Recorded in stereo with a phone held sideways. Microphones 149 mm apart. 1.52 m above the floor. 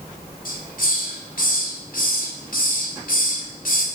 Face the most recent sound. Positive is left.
turn(degrees=70)  # may be behind; listen again after turning